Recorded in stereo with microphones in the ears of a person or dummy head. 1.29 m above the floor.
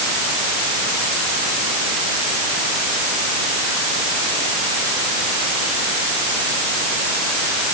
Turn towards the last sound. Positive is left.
No sound to turn to.